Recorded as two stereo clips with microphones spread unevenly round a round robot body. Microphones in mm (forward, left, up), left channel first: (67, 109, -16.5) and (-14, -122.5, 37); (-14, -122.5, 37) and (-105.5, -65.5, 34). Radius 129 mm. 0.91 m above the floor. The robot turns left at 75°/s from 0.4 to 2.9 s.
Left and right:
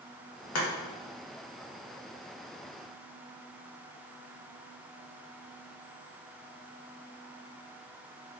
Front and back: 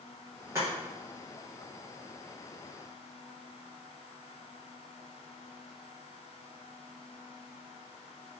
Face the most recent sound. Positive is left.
turn(degrees=-100)